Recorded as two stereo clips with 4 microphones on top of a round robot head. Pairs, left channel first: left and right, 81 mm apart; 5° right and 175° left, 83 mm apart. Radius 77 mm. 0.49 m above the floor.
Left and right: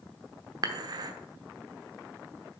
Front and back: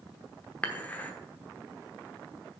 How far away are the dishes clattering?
About 1.0 m.